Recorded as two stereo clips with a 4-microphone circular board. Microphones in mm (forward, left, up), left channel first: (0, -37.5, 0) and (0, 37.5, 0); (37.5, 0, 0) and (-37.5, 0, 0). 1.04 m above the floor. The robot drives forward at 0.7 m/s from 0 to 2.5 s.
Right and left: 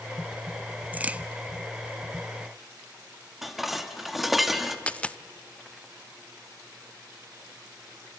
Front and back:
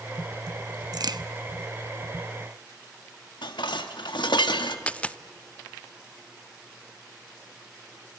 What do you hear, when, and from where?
0.9 s a crack: 155° left, 0.5 m; by 1.2 s 165° left, 0.7 m
3.4 s dishes clattering: straight ahead, 1.2 m
4.9 s a dropped coin: 45° right, 0.5 m